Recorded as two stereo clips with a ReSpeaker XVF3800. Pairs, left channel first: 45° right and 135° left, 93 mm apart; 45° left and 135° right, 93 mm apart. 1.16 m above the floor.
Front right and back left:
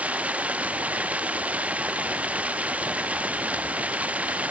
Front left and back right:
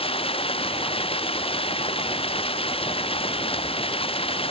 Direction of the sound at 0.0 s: 60° left.